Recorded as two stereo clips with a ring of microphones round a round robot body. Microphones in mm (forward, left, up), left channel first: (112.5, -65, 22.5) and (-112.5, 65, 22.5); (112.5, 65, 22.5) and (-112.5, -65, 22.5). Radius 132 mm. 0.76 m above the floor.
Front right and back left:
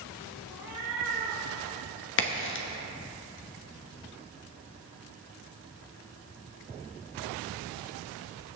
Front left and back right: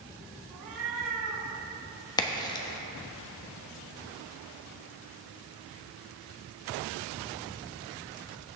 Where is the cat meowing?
130° right, 3.5 m.